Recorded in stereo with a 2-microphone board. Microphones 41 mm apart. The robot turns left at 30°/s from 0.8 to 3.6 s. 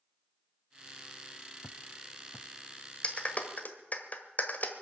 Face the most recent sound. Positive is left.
turn(degrees=40)  # may be behind; listen again after turning